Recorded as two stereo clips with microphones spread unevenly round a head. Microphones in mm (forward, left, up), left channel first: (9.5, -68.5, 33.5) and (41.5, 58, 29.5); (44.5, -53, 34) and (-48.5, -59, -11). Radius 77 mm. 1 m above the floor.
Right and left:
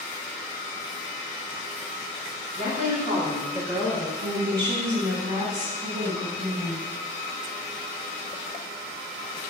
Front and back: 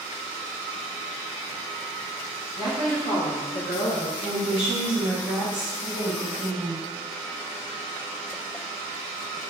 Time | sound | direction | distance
2.6 | a woman speaking | 100° left | 1.6 m
4.2 | a woman speaking | 130° left | 1.1 m